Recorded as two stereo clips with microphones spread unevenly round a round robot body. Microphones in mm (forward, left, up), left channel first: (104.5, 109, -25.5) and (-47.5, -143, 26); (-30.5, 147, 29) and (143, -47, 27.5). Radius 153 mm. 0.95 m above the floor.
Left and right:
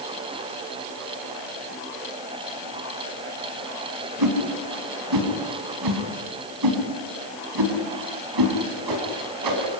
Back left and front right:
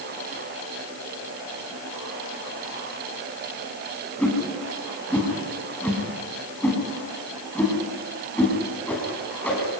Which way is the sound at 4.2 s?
145° right.